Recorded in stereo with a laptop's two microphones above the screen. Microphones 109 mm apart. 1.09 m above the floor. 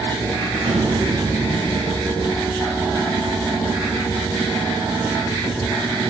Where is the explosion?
75° right (ahead or behind), 9 m.